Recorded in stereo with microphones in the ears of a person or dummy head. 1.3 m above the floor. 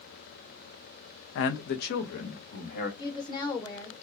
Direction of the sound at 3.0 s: 20° left (ahead or behind).